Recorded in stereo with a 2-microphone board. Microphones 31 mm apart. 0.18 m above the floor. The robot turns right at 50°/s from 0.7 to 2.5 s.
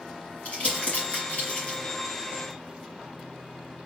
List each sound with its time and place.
0.5 s crumpling: 45° left (ahead or behind), 2.5 m; by 1.8 s 50° left (ahead or behind), 2.5 m